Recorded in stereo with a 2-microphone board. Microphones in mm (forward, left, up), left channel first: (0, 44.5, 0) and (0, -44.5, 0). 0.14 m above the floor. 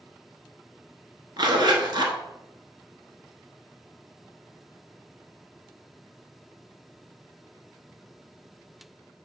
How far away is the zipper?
About 0.8 m.